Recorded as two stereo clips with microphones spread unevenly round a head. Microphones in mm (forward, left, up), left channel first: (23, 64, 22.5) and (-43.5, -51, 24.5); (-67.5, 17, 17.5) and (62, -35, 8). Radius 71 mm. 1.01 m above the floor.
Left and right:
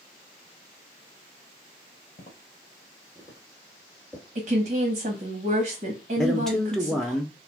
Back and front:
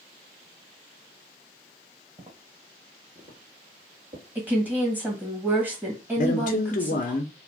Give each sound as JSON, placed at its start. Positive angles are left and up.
{"t": 2.2, "sound": "footsteps", "azimuth_deg": 40, "distance_m": 1.4}
{"t": 4.3, "sound": "a woman speaking", "azimuth_deg": -95, "distance_m": 1.4}
{"t": 6.2, "sound": "a man speaking", "azimuth_deg": 145, "distance_m": 0.5}